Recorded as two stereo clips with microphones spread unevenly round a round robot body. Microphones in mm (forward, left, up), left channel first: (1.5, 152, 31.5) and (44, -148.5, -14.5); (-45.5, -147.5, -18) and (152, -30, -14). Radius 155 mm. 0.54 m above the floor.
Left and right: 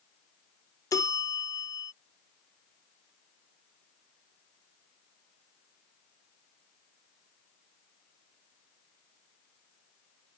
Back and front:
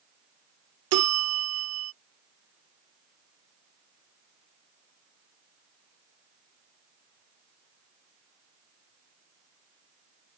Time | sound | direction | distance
0.9 | a bell | 15° left | ?